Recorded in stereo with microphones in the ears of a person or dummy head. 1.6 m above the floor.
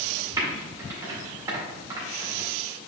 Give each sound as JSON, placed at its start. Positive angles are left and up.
{"t": 0.4, "sound": "typing on a keyboard", "side_deg": -20, "distance_m": 2.0}